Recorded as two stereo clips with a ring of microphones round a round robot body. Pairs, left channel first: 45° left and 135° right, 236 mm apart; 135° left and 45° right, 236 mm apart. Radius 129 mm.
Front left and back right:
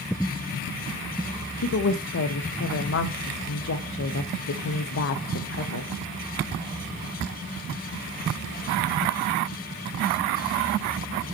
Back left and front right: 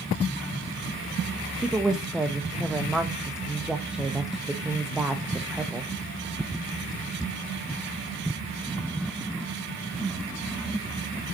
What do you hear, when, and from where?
1.6 s a woman speaking: 40° left, 0.8 m